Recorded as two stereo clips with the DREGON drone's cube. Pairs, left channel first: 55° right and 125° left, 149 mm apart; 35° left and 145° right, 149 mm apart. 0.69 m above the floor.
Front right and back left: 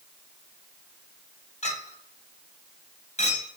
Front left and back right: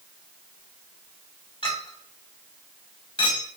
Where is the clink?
15° right, 1.4 m.